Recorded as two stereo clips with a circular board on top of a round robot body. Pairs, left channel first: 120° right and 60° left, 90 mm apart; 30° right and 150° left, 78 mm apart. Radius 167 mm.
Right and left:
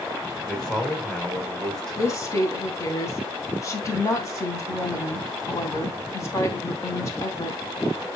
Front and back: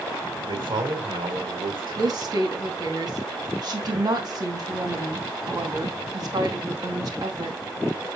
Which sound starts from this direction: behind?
A woman speaking, at 2.0 s.